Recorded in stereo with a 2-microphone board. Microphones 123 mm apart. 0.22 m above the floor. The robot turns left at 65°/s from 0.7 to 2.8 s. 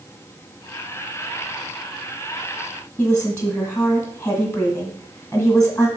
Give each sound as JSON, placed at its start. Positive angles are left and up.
{"t": 3.0, "sound": "a woman speaking", "side_deg": 10, "distance_m": 1.5}